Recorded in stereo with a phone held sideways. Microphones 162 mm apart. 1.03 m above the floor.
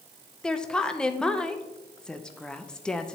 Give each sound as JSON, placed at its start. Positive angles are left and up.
{"t": 0.4, "sound": "a woman speaking", "side_deg": 5, "distance_m": 0.6}